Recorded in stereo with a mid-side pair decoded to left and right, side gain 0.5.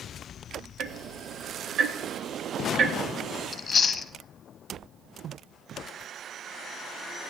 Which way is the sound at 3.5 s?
35° left.